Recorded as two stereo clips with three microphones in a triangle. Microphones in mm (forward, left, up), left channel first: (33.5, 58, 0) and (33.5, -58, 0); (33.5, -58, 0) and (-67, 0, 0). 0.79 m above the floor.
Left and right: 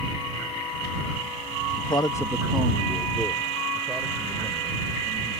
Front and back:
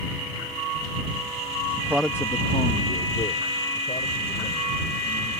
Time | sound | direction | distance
1.8 | a man speaking | 110° left | ?